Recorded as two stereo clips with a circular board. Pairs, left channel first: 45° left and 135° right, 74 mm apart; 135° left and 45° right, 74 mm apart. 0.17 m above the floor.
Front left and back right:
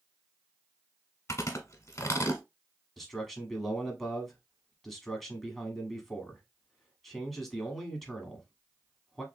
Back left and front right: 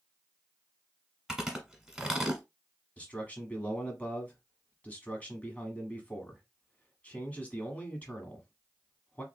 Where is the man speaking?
125° left, 1.0 m.